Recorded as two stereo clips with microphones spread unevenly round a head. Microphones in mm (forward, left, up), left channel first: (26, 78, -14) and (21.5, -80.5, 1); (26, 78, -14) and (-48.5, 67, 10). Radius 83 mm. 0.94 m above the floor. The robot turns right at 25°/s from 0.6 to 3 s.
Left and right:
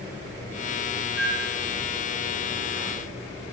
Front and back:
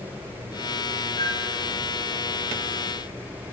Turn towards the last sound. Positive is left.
turn(degrees=50)